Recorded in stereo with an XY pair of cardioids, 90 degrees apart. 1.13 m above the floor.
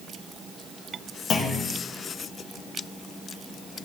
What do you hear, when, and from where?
1.3 s a clunk: 65° left, 1.6 m